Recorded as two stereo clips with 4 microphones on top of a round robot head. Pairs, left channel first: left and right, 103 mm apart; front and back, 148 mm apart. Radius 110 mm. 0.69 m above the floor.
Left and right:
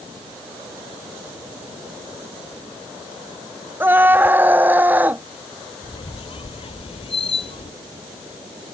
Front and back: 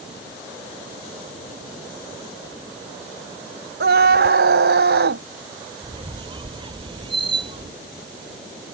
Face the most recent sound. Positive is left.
turn(degrees=120)